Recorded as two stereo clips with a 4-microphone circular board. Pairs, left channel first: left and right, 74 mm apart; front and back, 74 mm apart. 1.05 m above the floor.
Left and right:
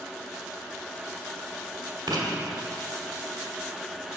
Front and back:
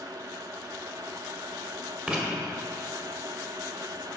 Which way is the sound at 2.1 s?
110° right.